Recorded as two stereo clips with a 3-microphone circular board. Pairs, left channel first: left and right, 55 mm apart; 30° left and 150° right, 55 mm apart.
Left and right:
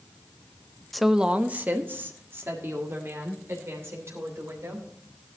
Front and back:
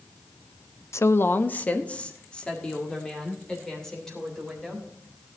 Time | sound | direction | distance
0.9 | a woman speaking | 5° left | 0.5 m